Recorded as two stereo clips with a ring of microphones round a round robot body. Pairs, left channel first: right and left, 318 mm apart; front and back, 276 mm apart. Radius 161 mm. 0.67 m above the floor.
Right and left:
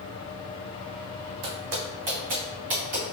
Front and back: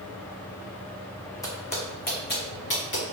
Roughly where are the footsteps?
Left.